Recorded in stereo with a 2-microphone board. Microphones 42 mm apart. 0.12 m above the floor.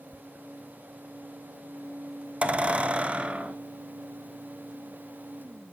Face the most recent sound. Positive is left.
turn(degrees=-30)  # may be behind; listen again after turning